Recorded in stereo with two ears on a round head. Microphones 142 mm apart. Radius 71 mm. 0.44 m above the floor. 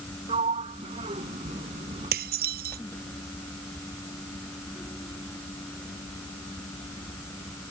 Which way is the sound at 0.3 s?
35° right (ahead or behind).